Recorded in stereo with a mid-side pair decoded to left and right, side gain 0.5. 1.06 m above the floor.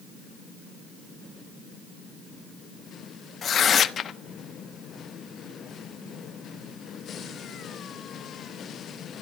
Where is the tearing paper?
45° left, 1.1 m.